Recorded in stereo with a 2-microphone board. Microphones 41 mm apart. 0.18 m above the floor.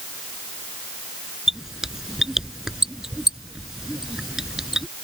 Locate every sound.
1.5 s a squeak: 10° right (ahead or behind)